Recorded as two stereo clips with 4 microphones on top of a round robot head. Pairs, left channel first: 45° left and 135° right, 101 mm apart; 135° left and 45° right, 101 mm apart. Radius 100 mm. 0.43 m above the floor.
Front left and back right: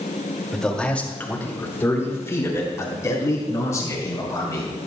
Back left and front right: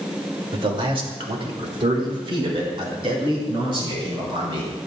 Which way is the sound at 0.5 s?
40° right.